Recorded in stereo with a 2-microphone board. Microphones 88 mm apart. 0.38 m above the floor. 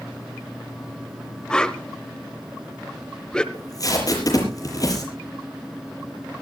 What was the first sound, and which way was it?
A whoosh, 10° left (ahead or behind).